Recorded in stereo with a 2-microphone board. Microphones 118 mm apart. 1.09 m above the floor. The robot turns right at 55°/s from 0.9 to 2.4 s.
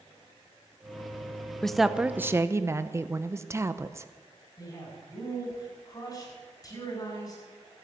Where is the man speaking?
30° left (ahead or behind), 8 m.